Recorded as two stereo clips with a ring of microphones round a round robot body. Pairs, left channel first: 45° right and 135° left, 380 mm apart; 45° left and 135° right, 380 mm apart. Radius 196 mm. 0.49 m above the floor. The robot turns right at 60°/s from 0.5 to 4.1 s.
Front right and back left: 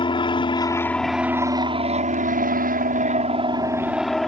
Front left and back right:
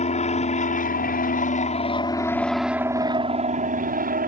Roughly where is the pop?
No pop in this recording.